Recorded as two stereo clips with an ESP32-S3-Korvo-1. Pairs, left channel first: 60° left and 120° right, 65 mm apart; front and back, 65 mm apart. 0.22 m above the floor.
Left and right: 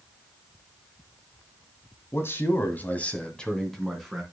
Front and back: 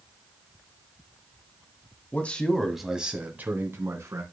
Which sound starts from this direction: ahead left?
A man speaking, at 2.1 s.